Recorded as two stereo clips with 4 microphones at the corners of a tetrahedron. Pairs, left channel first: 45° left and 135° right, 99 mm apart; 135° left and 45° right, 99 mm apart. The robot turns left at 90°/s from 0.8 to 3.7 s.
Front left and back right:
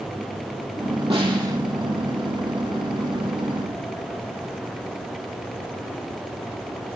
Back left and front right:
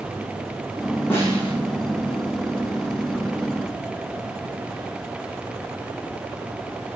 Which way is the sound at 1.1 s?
155° right.